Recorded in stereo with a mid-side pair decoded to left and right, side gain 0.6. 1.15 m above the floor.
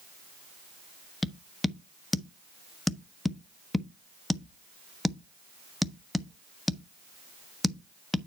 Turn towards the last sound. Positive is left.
turn(degrees=15)